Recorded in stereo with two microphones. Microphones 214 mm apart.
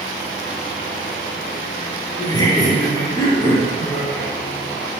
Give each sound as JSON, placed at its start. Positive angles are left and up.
{"t": 2.2, "sound": "laughter", "side_deg": 20, "distance_m": 3.5}